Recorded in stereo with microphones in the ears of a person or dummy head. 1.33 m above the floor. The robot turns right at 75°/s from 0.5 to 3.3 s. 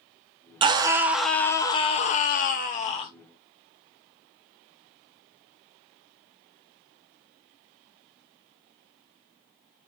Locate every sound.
0.6 s a scream: 45° right, 0.5 m; by 3.1 s 145° left, 0.5 m